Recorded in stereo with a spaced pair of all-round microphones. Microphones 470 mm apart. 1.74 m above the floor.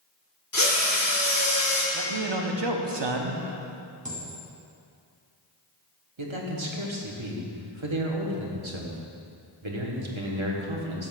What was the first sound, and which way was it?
A drill, 40° left (ahead or behind).